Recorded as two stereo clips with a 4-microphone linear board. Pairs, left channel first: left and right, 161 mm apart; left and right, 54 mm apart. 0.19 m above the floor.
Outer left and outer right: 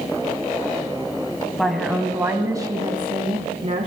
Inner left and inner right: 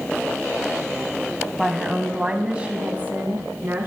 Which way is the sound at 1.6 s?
5° left (ahead or behind).